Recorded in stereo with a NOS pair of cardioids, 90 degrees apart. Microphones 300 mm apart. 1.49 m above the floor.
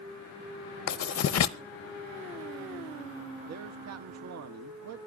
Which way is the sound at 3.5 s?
55° right.